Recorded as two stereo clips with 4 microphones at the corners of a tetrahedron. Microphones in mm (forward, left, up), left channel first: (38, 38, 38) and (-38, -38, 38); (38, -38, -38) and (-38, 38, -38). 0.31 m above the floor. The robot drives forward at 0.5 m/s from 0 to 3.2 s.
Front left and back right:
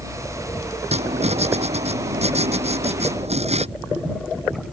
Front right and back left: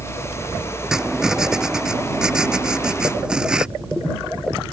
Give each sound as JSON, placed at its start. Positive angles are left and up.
{"t": 0.9, "sound": "writing", "azimuth_deg": -140}